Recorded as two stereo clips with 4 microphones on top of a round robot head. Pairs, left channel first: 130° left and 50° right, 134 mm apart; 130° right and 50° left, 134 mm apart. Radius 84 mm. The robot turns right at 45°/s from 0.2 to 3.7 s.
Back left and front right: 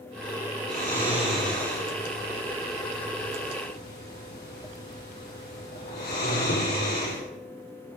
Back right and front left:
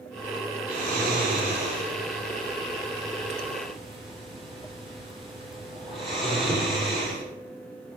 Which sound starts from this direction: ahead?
Snoring, at 0.7 s.